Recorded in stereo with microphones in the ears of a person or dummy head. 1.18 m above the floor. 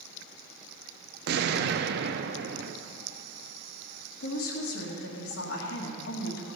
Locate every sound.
1.3 s an explosion: 50° right (ahead or behind), 0.6 m
4.2 s a woman speaking: 75° left (ahead or behind), 1.9 m